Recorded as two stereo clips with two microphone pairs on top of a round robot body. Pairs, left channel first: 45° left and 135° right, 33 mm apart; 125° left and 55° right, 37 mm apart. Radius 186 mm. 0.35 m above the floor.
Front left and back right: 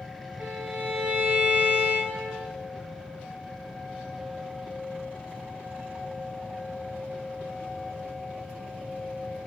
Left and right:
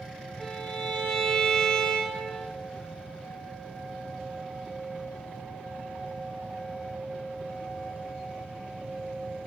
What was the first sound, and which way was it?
A violin, 170° right.